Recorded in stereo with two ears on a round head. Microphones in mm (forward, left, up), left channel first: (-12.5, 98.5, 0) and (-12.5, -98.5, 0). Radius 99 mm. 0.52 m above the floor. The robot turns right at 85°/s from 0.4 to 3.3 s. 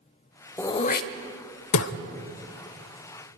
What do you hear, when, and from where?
0.6 s throat clearing: 10° left (ahead or behind), 0.7 m; by 1.9 s 55° left (ahead or behind), 0.7 m